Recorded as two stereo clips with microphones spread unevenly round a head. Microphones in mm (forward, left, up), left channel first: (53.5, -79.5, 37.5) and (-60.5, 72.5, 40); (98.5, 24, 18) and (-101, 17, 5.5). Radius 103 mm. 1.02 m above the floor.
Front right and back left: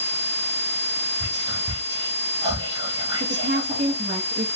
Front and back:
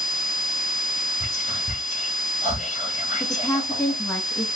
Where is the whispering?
60° left, 1.7 m.